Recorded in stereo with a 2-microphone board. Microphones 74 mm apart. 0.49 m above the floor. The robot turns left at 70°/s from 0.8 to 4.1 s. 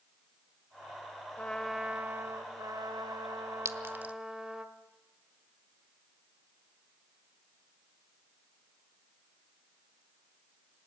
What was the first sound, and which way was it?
A trumpet, 20° left.